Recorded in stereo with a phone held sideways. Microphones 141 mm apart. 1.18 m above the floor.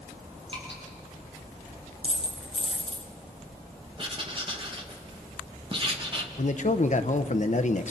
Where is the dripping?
40° right (ahead or behind), 8.5 m.